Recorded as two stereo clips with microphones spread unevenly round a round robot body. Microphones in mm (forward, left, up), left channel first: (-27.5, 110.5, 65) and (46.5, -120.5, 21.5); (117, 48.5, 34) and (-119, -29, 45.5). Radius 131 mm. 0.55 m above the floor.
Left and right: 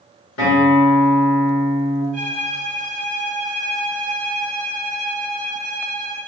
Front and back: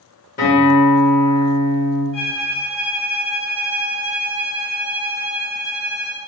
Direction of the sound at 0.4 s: 70° left.